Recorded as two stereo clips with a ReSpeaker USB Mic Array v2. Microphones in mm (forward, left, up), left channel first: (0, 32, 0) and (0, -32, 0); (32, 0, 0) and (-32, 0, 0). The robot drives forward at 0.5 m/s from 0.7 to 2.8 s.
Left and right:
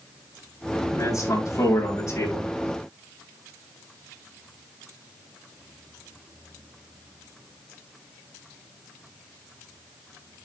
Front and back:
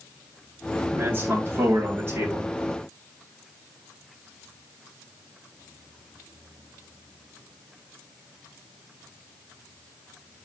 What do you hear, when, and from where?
0.9 s a man speaking: 120° left, 6.5 m; by 2.5 s 125° left, 6.5 m